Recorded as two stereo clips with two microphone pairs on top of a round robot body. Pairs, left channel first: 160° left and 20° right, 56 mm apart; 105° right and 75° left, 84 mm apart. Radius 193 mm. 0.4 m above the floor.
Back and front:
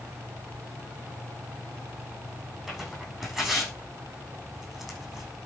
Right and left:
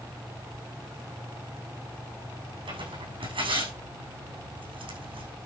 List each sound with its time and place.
2.7 s tearing paper: 70° left, 6.5 m